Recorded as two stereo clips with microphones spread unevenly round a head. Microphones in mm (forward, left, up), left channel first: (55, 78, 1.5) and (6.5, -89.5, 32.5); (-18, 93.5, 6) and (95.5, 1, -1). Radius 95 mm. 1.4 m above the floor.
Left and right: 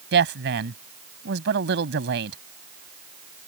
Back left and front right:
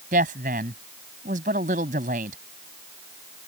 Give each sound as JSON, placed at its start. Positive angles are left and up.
{"t": 0.1, "sound": "a woman speaking", "azimuth_deg": -90}